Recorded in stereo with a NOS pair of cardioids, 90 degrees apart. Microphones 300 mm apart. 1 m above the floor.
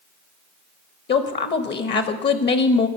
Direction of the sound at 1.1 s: 35° left.